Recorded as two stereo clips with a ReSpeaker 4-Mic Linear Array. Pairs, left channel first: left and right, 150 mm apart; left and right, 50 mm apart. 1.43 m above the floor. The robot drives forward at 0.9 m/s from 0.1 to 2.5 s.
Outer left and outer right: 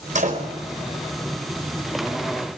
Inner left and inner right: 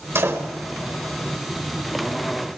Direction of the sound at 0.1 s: 55° right (ahead or behind).